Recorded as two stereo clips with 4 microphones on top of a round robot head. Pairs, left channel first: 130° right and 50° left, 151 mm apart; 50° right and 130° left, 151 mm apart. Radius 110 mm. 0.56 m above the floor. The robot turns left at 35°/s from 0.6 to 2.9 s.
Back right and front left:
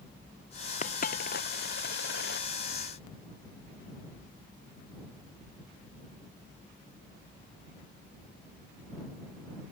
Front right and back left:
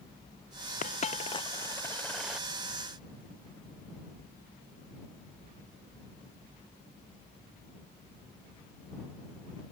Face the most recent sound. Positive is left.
turn(degrees=-160)